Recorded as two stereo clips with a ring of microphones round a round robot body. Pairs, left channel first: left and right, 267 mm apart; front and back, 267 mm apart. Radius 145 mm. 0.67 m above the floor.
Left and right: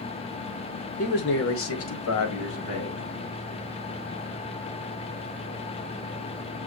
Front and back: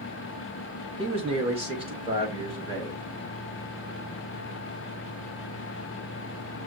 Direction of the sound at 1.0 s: 125° left.